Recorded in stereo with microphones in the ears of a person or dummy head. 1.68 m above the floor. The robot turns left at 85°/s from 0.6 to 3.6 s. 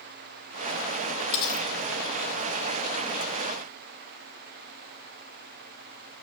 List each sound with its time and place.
1.3 s cutlery clinking: 55° left (ahead or behind), 1.4 m; by 1.7 s 35° left (ahead or behind), 1.4 m